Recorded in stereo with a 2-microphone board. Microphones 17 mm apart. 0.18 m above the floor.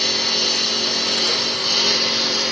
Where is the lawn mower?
15° left (ahead or behind); by 2.5 s 5° right (ahead or behind).